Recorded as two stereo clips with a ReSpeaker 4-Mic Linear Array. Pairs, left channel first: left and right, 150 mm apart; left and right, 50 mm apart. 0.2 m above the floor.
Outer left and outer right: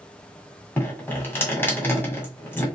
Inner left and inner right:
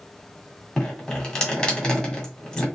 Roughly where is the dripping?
Centre.